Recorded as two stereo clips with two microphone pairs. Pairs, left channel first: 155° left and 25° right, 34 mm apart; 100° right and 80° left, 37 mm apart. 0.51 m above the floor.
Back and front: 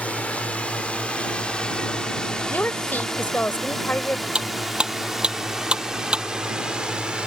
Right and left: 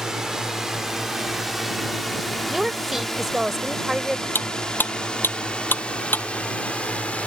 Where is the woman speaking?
155° left.